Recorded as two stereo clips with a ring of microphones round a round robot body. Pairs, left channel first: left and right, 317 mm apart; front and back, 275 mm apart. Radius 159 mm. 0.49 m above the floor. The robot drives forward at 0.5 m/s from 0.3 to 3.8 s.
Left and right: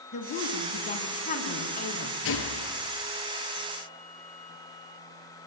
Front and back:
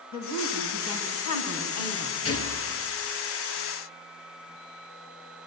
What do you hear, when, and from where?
0.1 s a woman speaking: 20° left, 5.5 m; by 2.1 s 25° left, 4.5 m
2.2 s a gunshot: 40° left, 4 m